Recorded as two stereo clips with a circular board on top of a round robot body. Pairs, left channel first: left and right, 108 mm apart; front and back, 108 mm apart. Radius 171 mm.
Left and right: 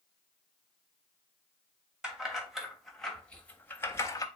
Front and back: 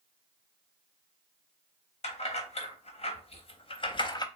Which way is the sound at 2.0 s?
5° right.